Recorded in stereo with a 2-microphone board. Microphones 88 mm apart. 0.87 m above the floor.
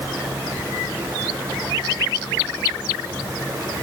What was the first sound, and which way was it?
Only background noise.